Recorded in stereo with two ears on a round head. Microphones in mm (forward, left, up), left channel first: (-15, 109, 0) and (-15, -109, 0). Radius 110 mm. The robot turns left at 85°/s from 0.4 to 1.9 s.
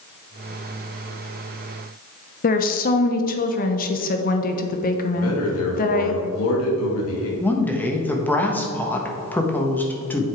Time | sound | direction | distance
2.4 | a woman speaking | 35° left (ahead or behind) | 0.8 m
5.2 | a man speaking | 65° left (ahead or behind) | 2.5 m
7.4 | a woman speaking | 5° left (ahead or behind) | 1.3 m